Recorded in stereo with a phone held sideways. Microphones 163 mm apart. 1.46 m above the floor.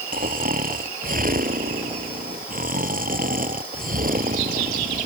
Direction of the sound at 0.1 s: 60° right (ahead or behind).